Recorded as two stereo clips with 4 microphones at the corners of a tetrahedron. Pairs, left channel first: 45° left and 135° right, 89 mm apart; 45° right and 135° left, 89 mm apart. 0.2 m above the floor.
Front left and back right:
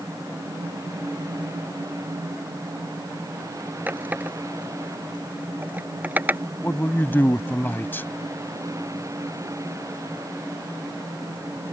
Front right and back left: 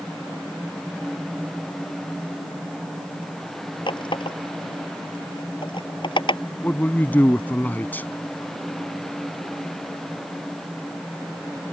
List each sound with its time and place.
3.9 s a running tap: 65° right
6.6 s a man speaking: 5° left